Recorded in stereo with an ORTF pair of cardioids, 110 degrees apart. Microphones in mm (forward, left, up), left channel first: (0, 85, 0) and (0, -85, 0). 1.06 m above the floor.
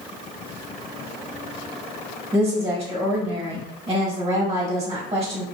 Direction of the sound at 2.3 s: 25° right.